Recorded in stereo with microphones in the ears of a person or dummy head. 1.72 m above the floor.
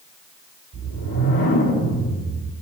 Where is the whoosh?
80° left, 3.5 m.